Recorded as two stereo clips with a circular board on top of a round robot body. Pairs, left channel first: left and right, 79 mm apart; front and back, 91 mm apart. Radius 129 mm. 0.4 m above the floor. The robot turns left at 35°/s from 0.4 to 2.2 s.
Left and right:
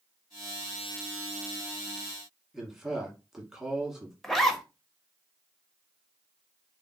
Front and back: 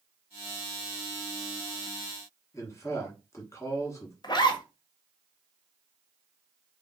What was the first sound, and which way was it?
A man speaking, 10° right.